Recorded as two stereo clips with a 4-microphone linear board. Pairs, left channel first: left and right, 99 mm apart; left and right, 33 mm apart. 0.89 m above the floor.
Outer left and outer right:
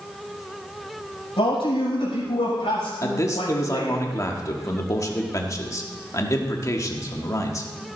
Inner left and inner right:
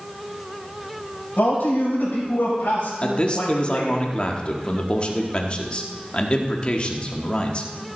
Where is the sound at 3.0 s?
35° left (ahead or behind), 1.4 m.